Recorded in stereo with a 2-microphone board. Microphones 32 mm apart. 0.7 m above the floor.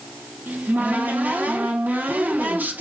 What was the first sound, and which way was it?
A cupboard door, 65° right (ahead or behind).